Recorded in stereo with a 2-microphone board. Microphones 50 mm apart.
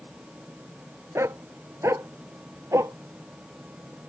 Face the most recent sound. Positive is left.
turn(degrees=-80)